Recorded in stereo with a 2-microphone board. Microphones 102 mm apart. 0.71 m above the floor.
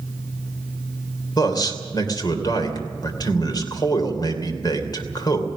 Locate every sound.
1.4 s a man speaking: 40° left (ahead or behind), 2.5 m